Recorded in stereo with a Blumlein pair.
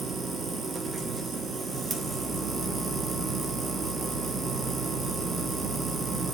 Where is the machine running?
10° right, 1.1 m.